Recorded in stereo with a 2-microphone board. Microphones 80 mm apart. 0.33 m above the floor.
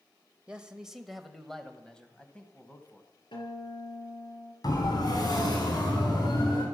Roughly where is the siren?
Left.